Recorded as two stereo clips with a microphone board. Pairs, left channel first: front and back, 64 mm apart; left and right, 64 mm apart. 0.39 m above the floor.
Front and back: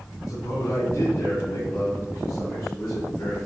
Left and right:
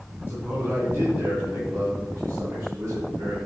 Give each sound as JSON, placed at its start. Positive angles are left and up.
{"t": 0.3, "sound": "a man speaking", "azimuth_deg": -35, "distance_m": 3.5}